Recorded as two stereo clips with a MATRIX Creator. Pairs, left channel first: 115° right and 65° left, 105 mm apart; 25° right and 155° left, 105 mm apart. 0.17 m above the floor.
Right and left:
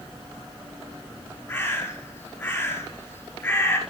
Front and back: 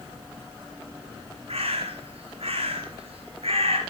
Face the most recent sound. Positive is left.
turn(degrees=-175)